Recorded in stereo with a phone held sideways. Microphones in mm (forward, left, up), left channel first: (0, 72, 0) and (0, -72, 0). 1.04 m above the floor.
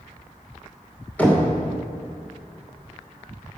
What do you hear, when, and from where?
1.2 s knocking: 10° left (ahead or behind), 2 m